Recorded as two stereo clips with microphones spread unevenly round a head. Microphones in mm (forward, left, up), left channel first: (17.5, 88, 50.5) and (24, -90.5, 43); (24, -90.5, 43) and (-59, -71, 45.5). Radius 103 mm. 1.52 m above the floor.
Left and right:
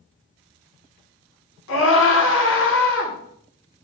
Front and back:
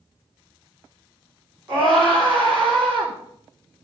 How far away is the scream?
About 4.5 m.